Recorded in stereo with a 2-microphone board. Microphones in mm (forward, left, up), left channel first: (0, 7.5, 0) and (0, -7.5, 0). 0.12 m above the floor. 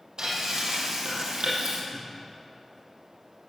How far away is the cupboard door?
About 4 m.